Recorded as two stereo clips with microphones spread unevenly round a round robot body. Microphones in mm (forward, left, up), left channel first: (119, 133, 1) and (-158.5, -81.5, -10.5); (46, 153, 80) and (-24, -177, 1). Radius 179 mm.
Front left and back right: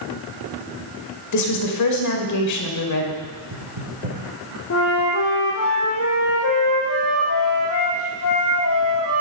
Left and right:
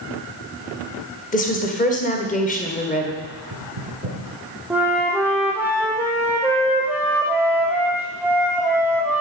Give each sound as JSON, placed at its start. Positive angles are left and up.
{"t": 1.3, "sound": "a woman speaking", "azimuth_deg": 5, "distance_m": 2.0}
{"t": 3.2, "sound": "knocking", "azimuth_deg": -125, "distance_m": 6.5}
{"t": 4.7, "sound": "a flute", "azimuth_deg": -15, "distance_m": 2.5}